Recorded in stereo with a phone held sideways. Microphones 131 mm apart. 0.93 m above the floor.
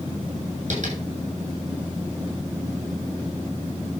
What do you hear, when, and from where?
0.7 s tapping: 65° right (ahead or behind), 8 m